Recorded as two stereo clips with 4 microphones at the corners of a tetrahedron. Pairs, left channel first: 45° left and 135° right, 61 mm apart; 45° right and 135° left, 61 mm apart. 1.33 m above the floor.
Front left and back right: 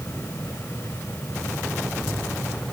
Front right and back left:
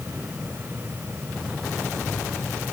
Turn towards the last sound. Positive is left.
No sound to turn to.